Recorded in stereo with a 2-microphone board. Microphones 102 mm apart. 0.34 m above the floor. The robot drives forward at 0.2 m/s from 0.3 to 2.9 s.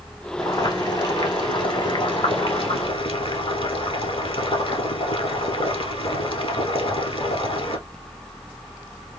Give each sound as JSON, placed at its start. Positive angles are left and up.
{"t": 0.4, "sound": "boiling", "side_deg": 45, "distance_m": 1.3}